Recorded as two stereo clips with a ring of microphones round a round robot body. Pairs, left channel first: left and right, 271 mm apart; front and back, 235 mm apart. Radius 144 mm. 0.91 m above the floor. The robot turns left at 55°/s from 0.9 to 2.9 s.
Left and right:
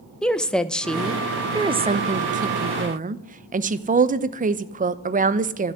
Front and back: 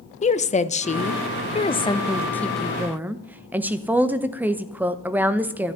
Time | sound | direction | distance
0.2 | a woman speaking | 5° left | 0.8 m